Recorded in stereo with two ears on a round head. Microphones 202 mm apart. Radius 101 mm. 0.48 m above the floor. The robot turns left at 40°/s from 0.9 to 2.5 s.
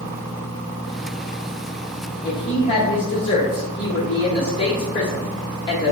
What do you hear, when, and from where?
2.2 s a woman speaking: 15° left (ahead or behind), 1.1 m; by 5.9 s 25° left (ahead or behind), 1.1 m